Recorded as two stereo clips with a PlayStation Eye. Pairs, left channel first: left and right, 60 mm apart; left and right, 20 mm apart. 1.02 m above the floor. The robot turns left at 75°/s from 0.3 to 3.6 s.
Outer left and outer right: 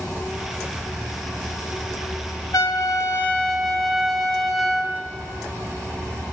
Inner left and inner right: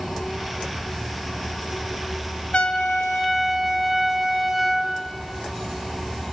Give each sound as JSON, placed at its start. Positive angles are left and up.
{"t": 0.0, "sound": "an insect", "azimuth_deg": 175, "distance_m": 2.0}
{"t": 2.5, "sound": "a trumpet", "azimuth_deg": 75, "distance_m": 0.6}